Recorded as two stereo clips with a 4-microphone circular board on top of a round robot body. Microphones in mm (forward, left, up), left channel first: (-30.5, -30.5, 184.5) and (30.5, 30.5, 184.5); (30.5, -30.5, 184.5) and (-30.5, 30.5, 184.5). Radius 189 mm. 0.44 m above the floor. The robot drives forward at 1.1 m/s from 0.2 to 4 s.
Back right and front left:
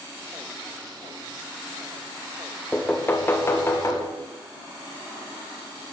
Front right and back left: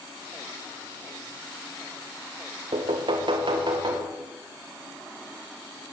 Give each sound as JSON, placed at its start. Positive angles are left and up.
{"t": 2.7, "sound": "knocking", "azimuth_deg": 150, "distance_m": 1.2}